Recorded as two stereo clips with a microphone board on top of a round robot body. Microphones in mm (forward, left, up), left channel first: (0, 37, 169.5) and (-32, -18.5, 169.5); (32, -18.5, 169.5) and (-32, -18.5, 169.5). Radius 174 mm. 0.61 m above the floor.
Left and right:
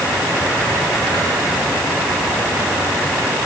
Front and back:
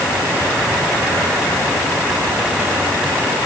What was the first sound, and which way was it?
Only background noise.